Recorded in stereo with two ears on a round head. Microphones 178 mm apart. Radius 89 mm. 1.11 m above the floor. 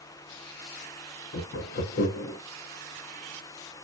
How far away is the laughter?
About 0.8 m.